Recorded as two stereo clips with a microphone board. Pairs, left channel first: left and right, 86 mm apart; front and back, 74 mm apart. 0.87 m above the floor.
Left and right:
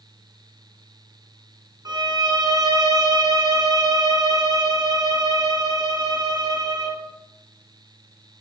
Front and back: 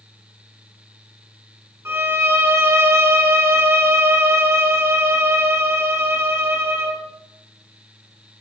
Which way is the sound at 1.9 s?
125° right.